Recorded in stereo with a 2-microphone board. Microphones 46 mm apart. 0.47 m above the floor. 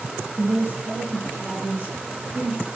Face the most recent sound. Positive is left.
turn(degrees=-40)  # may be behind; listen again after turning